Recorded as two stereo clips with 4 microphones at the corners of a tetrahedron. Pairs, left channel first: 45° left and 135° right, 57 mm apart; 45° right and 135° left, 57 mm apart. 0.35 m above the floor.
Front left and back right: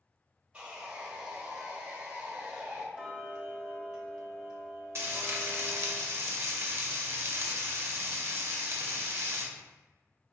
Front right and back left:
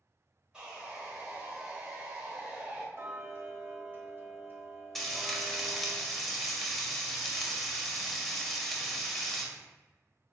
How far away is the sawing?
About 1.0 m.